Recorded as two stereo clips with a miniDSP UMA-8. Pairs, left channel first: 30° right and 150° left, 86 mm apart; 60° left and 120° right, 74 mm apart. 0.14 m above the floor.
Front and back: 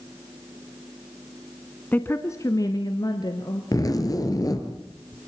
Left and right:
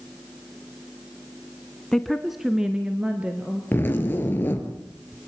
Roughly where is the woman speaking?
Ahead.